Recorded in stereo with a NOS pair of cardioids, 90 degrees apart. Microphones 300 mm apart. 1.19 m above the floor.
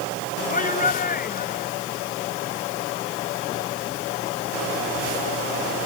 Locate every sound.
0.5 s a shout: 25° left; by 1.7 s 30° left